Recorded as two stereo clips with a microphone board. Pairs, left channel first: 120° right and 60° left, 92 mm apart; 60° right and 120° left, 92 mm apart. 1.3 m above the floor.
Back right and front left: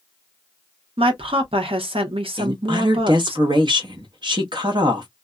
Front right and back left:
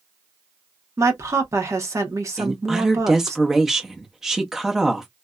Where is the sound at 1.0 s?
60° left, 0.9 m.